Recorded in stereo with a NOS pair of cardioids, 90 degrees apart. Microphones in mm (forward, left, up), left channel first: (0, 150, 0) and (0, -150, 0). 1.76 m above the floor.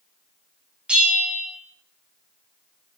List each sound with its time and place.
0.9 s a bell: 5° right, 1.3 m